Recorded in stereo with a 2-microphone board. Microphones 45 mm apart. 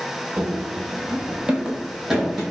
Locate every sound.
0.4 s running footsteps: 35° right (ahead or behind), 0.8 m; by 2.4 s 5° right (ahead or behind), 1.2 m